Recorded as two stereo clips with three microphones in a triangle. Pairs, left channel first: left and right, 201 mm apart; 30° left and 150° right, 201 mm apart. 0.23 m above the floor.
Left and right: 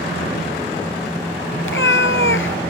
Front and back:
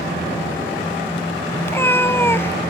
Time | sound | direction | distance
1.6 | a cat meowing | 105° left | 0.5 m